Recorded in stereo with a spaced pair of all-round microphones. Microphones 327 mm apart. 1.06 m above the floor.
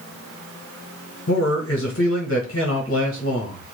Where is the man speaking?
40° left (ahead or behind), 1.0 m.